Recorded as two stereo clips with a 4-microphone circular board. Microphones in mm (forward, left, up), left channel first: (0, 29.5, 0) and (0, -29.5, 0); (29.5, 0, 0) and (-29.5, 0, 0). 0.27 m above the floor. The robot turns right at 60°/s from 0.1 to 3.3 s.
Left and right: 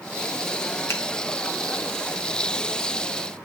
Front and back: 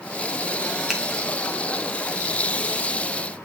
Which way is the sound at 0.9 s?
100° left.